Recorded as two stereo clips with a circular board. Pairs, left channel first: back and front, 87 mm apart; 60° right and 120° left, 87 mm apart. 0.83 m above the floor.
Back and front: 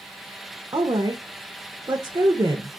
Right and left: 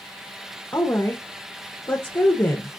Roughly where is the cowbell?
I don't hear a cowbell.